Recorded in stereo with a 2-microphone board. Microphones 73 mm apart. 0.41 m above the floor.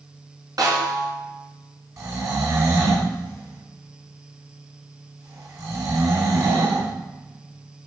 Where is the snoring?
45° right (ahead or behind), 3.5 m.